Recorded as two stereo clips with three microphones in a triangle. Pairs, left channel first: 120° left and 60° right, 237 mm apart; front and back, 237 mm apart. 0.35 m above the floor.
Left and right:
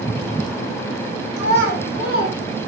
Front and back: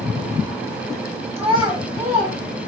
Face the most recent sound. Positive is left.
turn(degrees=85)